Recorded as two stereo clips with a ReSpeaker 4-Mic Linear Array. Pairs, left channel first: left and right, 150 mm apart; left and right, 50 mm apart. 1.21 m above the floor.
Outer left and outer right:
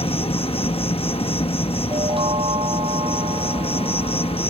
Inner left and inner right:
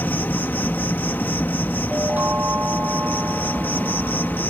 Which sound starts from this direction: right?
A chime, at 1.9 s.